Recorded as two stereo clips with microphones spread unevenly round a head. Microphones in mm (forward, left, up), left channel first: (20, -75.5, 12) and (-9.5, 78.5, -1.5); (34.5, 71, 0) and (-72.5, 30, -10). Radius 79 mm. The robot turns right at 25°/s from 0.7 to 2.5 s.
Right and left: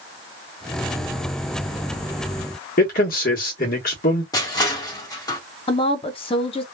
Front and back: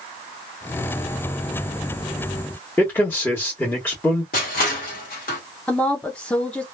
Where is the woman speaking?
60° right, 0.6 m.